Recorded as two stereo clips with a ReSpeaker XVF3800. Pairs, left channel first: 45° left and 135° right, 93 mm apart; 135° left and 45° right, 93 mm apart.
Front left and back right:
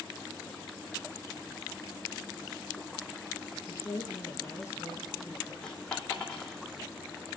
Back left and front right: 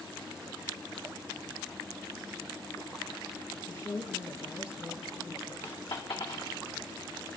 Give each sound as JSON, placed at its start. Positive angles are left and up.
{"t": 3.7, "sound": "a woman speaking", "azimuth_deg": 95, "distance_m": 2.0}
{"t": 5.6, "sound": "a dropped coin", "azimuth_deg": 130, "distance_m": 2.0}